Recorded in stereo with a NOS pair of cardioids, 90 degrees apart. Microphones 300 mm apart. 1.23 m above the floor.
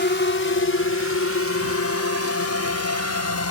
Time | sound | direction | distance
0.0 | a drone | 40° left | ?